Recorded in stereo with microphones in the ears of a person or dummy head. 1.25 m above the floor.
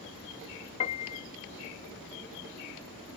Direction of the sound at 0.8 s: 35° left (ahead or behind).